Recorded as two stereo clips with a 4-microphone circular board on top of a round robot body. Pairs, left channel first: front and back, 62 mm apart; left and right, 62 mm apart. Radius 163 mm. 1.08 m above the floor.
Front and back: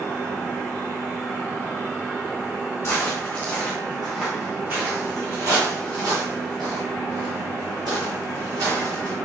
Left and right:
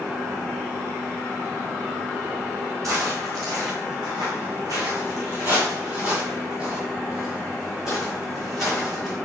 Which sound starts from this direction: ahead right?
Footsteps, at 2.8 s.